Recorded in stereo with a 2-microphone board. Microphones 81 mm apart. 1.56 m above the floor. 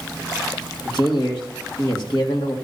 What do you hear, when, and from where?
0.8 s a man speaking: 65° left (ahead or behind), 2 m